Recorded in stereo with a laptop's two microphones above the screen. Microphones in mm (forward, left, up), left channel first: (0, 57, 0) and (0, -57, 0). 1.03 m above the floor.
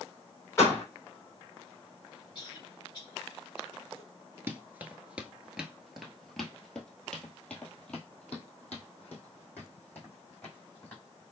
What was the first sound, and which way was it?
A door slam, 25° left (ahead or behind).